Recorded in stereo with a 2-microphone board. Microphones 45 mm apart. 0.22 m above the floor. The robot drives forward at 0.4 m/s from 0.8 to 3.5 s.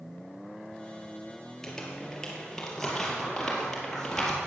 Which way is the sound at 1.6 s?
10° left (ahead or behind).